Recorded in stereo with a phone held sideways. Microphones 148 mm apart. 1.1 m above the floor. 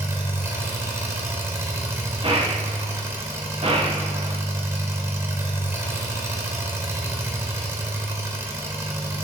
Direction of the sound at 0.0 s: 20° right (ahead or behind).